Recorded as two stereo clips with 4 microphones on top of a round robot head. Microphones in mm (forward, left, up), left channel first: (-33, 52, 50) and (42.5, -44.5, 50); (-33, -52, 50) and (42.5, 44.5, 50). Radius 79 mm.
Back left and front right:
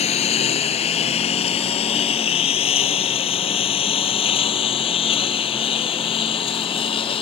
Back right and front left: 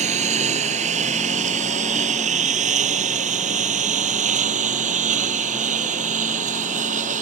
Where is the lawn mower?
90° left; by 7.2 s 80° left.